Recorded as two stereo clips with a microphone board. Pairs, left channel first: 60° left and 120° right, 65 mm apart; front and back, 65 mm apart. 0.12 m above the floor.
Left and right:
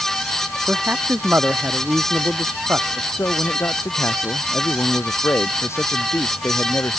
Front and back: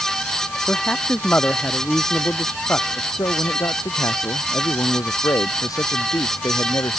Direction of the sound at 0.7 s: 60° right.